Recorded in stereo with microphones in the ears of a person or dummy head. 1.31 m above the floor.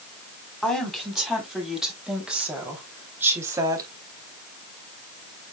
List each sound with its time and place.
0.6 s a woman speaking: 10° left (ahead or behind), 4.5 m; by 3.9 s 15° right (ahead or behind), 3 m